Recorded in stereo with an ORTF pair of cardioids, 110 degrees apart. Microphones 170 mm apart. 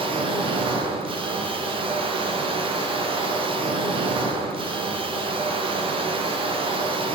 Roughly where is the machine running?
Ahead right.